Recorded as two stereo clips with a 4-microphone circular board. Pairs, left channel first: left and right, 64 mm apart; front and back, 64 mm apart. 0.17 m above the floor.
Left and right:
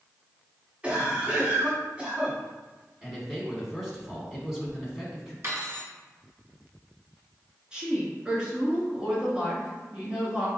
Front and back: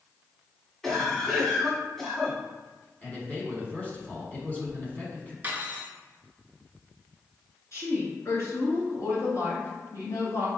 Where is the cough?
75° right, 1.2 m.